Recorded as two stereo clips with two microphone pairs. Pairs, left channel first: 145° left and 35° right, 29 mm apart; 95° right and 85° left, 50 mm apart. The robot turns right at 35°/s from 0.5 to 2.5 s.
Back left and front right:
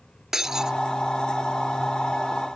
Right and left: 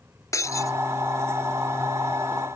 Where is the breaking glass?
105° right; by 0.8 s 95° right.